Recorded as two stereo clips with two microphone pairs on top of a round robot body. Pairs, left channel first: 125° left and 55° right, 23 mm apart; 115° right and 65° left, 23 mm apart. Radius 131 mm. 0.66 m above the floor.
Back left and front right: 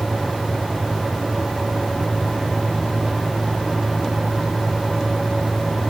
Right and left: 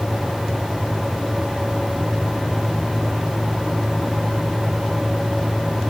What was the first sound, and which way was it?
Only background noise.